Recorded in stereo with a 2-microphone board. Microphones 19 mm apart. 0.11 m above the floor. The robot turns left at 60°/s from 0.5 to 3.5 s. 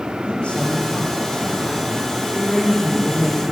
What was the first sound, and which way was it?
A man speaking, 90° left.